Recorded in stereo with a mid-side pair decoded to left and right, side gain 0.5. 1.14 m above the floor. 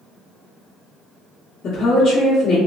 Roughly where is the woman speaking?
Ahead left.